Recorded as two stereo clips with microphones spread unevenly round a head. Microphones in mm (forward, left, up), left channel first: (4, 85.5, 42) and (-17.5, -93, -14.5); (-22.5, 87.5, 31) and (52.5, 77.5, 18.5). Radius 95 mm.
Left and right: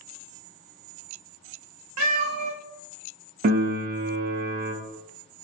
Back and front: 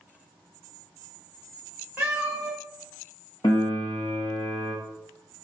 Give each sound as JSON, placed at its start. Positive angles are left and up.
{"t": 2.0, "sound": "a cat meowing", "azimuth_deg": -95, "distance_m": 0.8}
{"t": 3.4, "sound": "a piano", "azimuth_deg": -125, "distance_m": 0.5}